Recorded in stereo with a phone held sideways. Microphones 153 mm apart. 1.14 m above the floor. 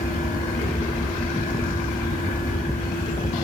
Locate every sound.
0.0 s a fan: 70° left (ahead or behind), 4.5 m